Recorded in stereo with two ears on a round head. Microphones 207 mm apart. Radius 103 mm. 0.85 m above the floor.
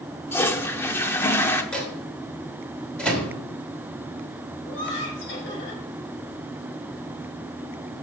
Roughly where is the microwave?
Centre.